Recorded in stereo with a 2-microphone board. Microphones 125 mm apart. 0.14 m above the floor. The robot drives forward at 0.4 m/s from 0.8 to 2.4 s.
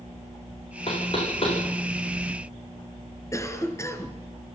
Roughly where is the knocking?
Left.